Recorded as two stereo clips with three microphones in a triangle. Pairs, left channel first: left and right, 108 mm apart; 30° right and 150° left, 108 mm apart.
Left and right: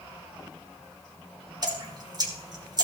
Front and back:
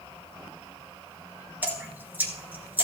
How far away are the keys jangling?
I don't hear keys jangling.